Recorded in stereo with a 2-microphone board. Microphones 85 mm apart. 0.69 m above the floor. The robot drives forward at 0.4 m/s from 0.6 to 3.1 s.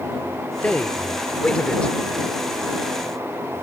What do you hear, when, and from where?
0.6 s a man speaking: 15° left (ahead or behind); by 1.9 s 10° left (ahead or behind)